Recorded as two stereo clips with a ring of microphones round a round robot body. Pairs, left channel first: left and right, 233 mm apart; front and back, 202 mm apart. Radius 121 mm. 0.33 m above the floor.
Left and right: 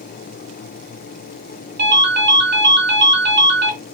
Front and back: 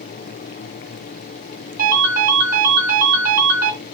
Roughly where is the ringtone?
Behind right.